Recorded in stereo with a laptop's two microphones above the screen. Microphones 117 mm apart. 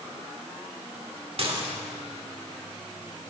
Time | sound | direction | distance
1.4 | dishes clattering | 55° right (ahead or behind) | 2 m